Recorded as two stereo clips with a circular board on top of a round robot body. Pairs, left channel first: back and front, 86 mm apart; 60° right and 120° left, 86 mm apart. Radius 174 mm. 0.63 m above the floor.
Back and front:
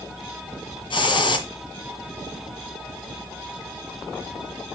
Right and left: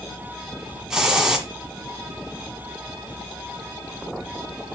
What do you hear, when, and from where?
0.9 s a hiss: 155° right, 2 m